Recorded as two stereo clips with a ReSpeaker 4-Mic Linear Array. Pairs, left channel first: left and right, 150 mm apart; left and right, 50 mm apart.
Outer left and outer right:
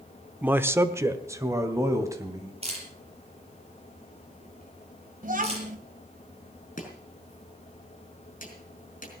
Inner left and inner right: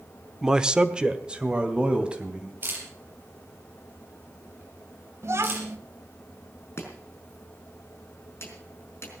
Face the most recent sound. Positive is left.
turn(degrees=55)  # may be behind; listen again after turning